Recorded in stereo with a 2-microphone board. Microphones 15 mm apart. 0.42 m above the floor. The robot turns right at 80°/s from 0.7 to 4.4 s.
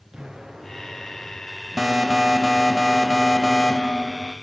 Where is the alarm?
100° right, 1.7 m; by 4.3 s 105° left, 1.7 m.